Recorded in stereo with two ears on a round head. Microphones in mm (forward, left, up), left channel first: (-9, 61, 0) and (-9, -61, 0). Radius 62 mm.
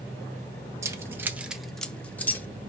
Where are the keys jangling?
20° right (ahead or behind), 0.7 m; by 2.5 s 15° left (ahead or behind), 0.9 m.